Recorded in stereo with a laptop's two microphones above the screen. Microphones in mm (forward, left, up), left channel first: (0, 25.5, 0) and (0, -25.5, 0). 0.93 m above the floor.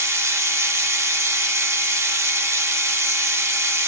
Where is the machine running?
70° right (ahead or behind), 1.0 m.